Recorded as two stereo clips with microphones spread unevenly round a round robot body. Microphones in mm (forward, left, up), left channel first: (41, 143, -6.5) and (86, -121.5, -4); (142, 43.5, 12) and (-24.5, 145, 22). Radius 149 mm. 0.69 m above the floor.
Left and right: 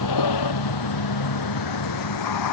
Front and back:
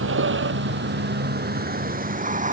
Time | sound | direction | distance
0.0 | a vehicle | 135° left | ?